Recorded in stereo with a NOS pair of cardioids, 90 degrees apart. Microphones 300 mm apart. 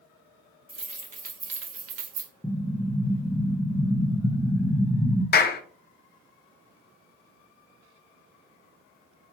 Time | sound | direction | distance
0.7 | keys jangling | 20° right | 1.4 m
2.4 | an explosion | 5° left | 0.7 m
5.3 | a clap | 35° left | 0.6 m